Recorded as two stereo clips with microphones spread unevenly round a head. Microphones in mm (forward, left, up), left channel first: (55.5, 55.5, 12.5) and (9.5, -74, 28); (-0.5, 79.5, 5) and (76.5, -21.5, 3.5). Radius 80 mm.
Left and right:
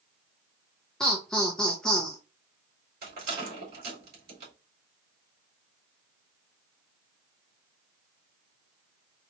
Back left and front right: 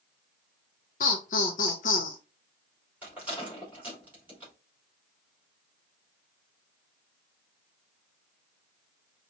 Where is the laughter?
155° left, 0.6 m.